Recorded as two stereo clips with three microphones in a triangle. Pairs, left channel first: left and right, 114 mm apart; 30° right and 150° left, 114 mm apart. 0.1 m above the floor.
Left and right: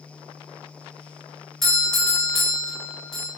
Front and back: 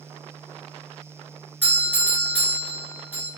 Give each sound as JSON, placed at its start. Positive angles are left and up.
{"t": 1.6, "sound": "a doorbell", "azimuth_deg": 10, "distance_m": 1.5}